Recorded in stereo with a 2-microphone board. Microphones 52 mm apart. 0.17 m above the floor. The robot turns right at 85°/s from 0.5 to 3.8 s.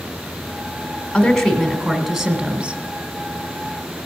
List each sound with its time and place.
1.1 s a woman speaking: 15° left (ahead or behind), 1.5 m; by 2.8 s 20° right (ahead or behind), 1.5 m